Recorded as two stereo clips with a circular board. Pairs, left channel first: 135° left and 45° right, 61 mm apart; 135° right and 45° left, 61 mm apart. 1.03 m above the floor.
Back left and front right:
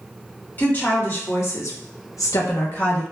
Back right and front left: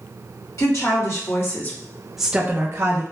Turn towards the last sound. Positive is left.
turn(degrees=75)